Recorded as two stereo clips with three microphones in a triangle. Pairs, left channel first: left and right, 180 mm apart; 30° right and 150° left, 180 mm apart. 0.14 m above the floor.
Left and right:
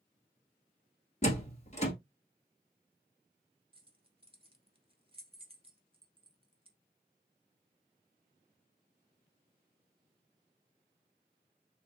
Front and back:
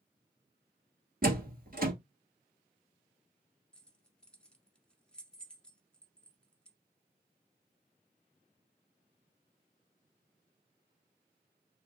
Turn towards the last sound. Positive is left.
turn(degrees=-110)